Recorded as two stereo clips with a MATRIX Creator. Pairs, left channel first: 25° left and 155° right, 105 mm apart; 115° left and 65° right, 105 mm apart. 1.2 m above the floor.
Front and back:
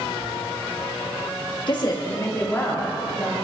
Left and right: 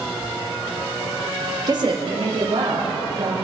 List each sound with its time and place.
1.7 s a woman speaking: 15° right, 1.6 m; by 3.3 s 55° right, 3.5 m